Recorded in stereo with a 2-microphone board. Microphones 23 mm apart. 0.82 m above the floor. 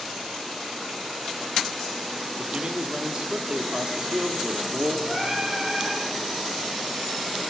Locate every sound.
2.4 s a man speaking: 50° right (ahead or behind), 2.5 m
5.1 s singing: 30° right (ahead or behind), 8 m